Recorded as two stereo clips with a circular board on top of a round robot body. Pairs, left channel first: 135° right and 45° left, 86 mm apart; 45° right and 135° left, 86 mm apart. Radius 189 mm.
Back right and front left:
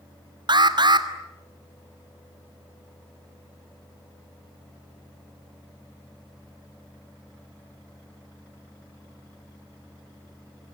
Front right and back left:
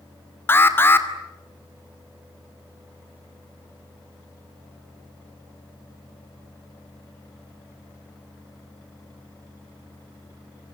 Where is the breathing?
No breathing in this recording.